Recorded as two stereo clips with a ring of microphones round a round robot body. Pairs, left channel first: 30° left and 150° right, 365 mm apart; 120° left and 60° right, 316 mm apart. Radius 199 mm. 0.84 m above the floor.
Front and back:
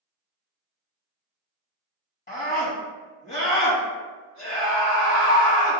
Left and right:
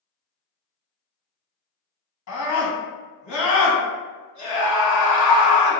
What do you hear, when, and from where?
2.3 s a scream: 95° left, 1.8 m